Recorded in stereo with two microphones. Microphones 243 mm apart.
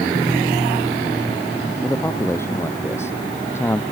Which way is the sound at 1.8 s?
10° left (ahead or behind).